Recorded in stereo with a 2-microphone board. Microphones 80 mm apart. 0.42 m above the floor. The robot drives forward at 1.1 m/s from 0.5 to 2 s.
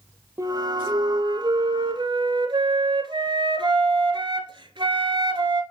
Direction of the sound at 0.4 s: 35° right (ahead or behind).